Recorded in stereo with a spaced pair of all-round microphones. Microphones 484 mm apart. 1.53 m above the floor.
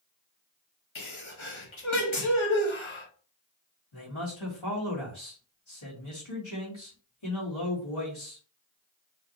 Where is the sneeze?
70° left (ahead or behind), 1.4 m.